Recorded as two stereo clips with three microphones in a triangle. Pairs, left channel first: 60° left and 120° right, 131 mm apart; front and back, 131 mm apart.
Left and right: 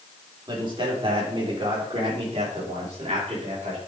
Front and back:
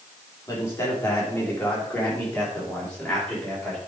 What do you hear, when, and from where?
0.5 s a man speaking: 70° right, 3.5 m; by 3.8 s 85° right, 5 m